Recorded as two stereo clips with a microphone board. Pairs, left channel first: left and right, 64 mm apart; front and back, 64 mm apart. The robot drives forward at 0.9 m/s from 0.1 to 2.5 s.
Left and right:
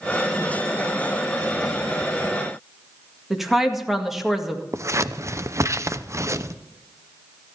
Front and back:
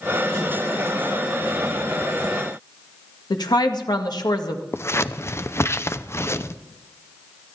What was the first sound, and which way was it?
A woman speaking, 5° right.